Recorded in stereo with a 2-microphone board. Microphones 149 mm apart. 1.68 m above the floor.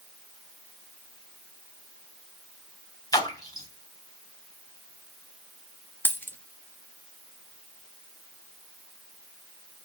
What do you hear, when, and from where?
3.1 s a splash: 25° left (ahead or behind), 3 m
6.0 s a dropped coin: 15° left (ahead or behind), 1.3 m